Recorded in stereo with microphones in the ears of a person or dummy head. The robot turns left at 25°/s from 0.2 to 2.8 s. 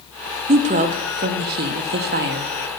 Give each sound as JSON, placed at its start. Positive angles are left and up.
{"t": 0.5, "sound": "a woman speaking", "azimuth_deg": -50, "distance_m": 0.6}